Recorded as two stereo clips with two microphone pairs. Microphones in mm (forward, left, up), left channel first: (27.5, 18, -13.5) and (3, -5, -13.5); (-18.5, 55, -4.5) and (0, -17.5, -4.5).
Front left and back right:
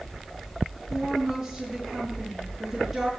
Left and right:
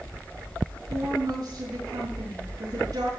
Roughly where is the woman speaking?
Ahead right.